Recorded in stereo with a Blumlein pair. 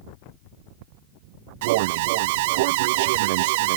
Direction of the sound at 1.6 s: 50° right.